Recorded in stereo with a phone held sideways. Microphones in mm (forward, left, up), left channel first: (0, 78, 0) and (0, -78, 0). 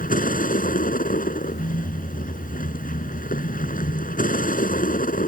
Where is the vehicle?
60° left (ahead or behind).